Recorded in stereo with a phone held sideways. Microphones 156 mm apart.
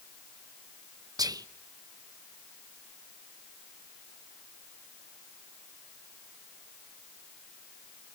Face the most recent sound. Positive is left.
turn(degrees=-25)  # may be behind; listen again after turning